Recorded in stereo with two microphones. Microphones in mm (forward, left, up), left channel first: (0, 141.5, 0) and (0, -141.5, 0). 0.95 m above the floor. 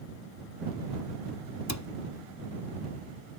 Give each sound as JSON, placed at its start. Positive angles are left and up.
{"t": 1.7, "sound": "a cupboard door", "side_deg": 70}